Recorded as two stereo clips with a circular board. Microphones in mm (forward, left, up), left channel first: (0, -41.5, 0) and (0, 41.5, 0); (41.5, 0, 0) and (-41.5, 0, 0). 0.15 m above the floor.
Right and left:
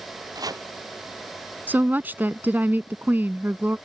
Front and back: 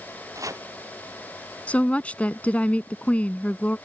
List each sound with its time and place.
0.3 s chopping: 130° left
1.7 s a woman speaking: 55° left